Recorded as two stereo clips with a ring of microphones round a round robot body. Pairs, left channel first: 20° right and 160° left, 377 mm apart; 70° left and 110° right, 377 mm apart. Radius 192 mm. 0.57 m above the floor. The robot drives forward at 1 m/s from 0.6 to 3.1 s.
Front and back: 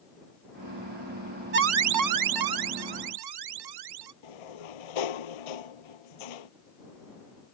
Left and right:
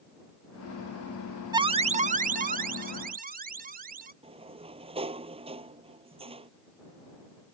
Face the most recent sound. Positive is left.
turn(degrees=-35)